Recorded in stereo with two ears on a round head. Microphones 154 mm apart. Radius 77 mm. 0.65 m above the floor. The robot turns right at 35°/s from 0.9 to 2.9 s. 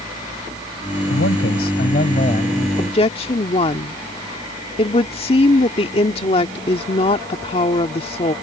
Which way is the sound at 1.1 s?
95° left.